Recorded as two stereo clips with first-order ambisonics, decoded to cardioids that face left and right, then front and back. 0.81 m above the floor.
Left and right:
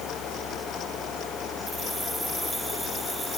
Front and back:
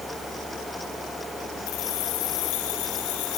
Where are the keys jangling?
Straight ahead.